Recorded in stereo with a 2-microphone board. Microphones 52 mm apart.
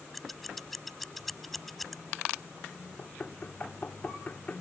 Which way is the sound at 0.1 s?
Centre (ahead or behind).